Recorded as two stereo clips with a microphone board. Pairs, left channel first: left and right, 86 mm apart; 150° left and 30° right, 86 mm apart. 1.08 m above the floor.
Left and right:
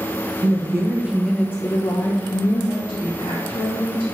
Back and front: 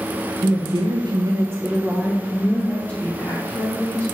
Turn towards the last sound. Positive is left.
turn(degrees=85)